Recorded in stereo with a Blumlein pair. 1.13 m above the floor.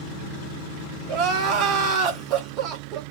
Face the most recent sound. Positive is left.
turn(degrees=-35)